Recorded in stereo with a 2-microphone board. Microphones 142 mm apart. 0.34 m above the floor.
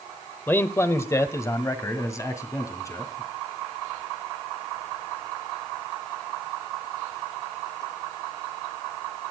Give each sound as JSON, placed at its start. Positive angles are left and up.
{"t": 0.5, "sound": "a man speaking", "side_deg": 15, "distance_m": 0.9}